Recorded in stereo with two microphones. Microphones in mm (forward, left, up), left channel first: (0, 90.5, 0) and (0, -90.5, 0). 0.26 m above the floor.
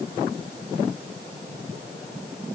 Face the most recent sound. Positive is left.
No sound to turn to.